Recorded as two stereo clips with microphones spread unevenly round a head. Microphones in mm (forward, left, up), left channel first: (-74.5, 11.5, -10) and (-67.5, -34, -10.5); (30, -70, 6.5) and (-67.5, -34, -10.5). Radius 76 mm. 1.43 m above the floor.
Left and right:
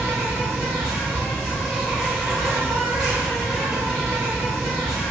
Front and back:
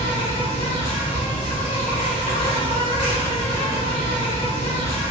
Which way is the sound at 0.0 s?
5° left.